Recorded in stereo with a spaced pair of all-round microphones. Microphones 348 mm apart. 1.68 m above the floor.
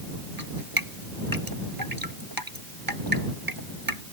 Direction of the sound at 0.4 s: 80° right.